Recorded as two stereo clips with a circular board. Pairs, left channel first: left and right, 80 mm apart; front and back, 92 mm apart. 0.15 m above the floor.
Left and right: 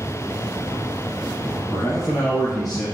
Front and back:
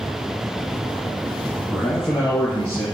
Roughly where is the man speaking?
Ahead left.